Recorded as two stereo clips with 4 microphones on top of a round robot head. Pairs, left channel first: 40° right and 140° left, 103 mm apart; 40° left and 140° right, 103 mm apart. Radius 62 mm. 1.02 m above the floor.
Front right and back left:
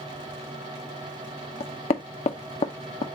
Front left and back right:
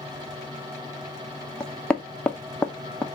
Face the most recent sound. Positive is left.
turn(degrees=-40)